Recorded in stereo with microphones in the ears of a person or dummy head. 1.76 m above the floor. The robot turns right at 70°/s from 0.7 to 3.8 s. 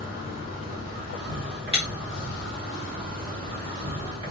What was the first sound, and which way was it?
An insect, 110° left.